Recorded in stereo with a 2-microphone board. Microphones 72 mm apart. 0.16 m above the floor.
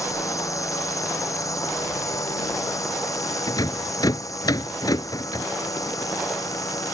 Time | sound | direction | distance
0.0 | a drone | 45° left (ahead or behind) | ?
3.5 | a rattle | 55° left (ahead or behind) | ?